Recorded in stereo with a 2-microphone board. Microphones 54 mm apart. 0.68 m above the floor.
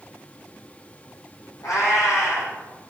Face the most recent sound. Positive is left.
turn(degrees=85)